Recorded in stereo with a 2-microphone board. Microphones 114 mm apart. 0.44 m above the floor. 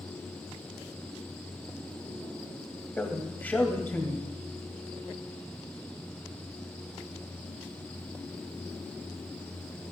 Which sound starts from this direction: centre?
A man speaking, at 3.0 s.